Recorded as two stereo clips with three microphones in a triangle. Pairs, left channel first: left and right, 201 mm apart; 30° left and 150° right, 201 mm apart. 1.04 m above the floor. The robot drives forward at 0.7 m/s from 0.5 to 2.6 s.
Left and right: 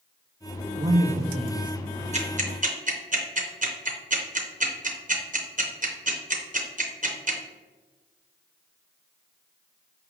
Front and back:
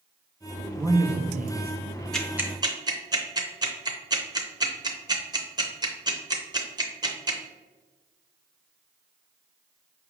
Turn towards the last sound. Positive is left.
turn(degrees=-90)